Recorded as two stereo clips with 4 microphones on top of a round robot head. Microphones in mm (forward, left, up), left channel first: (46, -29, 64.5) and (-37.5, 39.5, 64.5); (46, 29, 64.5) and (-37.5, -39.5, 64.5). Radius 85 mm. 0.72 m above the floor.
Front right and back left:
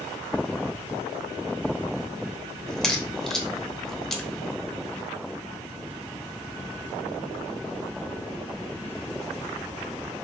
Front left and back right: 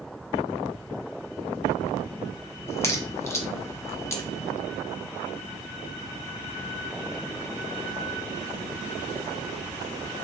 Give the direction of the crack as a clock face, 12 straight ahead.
11 o'clock.